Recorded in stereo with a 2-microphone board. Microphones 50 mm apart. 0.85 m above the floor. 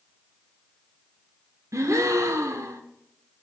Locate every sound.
1.7 s a gasp: 75° right (ahead or behind), 0.9 m